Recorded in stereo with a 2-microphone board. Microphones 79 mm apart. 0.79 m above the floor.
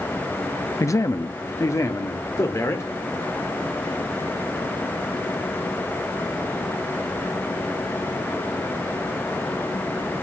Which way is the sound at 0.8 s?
40° left (ahead or behind).